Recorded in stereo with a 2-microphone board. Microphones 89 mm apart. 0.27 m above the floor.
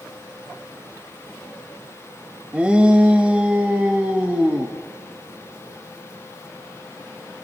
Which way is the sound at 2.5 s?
10° right (ahead or behind).